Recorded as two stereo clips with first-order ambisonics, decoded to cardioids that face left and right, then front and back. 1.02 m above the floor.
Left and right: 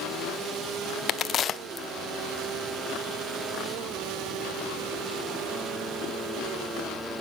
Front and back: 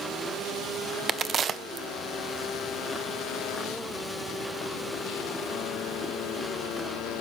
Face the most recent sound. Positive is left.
turn(degrees=135)